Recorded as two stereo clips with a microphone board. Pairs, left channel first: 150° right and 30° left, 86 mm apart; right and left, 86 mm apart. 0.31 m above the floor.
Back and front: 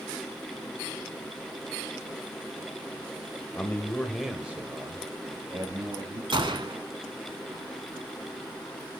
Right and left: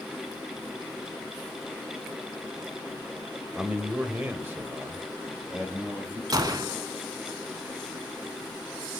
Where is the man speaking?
160° left, 1.5 m; by 6.2 s 25° left, 2.5 m.